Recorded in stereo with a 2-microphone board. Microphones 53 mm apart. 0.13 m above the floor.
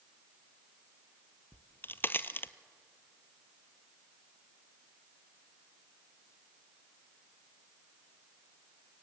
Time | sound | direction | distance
1.5 | a crack | 40° left (ahead or behind) | 0.6 m